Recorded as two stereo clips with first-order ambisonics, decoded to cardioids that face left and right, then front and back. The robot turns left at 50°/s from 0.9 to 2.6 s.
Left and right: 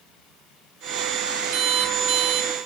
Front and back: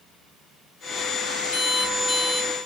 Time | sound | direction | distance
1.5 | an alarm clock | 50° right | 2.5 m